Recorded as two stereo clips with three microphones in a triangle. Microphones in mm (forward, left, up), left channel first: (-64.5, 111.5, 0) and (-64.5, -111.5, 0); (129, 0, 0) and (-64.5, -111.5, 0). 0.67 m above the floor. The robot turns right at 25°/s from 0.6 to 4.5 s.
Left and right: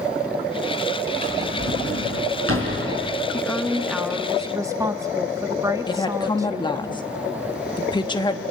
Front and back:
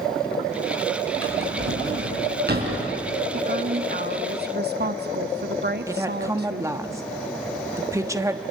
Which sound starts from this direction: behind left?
A woman speaking, at 5.9 s.